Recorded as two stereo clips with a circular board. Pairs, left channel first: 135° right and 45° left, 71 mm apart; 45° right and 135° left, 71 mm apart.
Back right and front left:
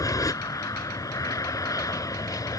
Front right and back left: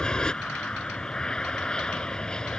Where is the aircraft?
125° right.